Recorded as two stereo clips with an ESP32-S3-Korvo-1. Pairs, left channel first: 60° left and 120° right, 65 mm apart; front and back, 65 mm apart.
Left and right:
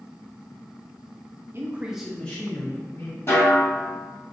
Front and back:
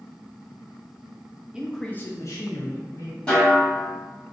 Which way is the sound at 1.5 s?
110° right.